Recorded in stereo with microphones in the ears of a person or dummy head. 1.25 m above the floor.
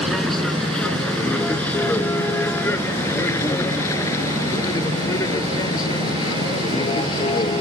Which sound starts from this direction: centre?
A vehicle, at 0.0 s.